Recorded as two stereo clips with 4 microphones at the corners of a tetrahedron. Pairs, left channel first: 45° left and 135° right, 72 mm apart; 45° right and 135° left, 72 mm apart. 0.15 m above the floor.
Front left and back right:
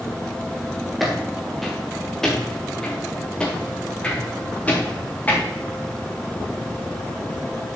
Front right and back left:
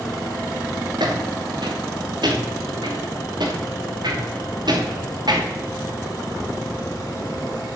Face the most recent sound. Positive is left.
turn(degrees=115)